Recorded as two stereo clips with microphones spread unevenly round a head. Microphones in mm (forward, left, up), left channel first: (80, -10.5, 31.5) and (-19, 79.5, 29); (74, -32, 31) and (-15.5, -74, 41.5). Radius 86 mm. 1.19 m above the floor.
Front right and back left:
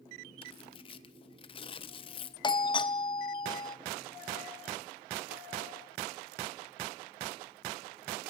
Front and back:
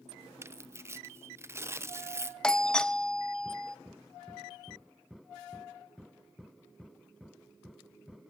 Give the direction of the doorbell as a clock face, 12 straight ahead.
1 o'clock.